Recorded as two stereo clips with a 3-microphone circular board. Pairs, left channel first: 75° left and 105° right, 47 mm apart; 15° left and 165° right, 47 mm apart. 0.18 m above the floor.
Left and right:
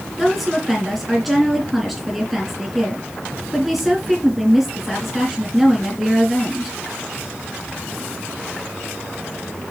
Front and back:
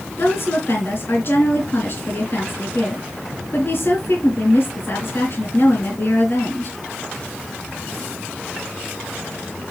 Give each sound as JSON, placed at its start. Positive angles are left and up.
{"t": 0.2, "sound": "a woman speaking", "azimuth_deg": -10, "distance_m": 4.0}